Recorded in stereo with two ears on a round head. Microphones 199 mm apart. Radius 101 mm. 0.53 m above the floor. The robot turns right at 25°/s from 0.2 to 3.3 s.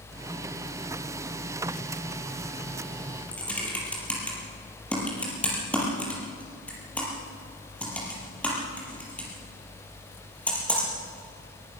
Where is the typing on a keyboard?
5° left (ahead or behind), 5.5 m.